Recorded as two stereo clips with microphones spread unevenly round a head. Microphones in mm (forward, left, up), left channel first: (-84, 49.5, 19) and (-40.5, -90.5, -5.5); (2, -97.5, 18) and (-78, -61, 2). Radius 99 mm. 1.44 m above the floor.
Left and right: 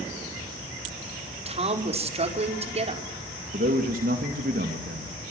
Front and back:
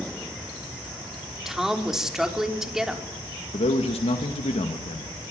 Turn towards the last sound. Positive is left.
turn(degrees=-25)